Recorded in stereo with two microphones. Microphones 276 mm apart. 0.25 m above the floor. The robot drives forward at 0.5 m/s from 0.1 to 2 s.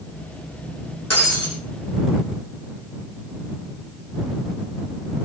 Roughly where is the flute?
I don't hear a flute.